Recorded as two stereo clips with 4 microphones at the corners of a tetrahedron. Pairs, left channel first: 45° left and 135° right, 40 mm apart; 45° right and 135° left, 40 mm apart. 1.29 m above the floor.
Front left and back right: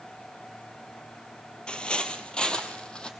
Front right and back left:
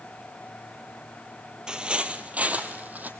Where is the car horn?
No car horn in this recording.